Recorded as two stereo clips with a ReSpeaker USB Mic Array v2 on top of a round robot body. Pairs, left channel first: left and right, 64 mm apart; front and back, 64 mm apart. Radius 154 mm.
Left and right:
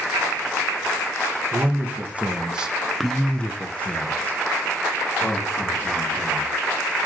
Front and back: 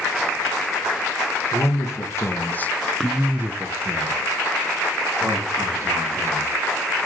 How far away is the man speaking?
About 1.2 m.